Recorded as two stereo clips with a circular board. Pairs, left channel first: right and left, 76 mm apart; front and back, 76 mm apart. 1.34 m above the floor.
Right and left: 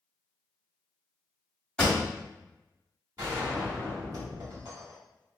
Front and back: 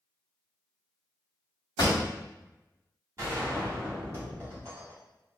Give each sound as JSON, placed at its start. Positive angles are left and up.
{"t": 1.8, "sound": "a pop", "azimuth_deg": -20, "distance_m": 1.1}
{"t": 3.2, "sound": "a gunshot", "azimuth_deg": 130, "distance_m": 1.6}